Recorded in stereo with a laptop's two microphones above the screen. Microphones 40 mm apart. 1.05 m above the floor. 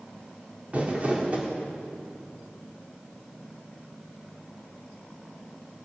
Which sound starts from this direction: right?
Crumpling, at 0.7 s.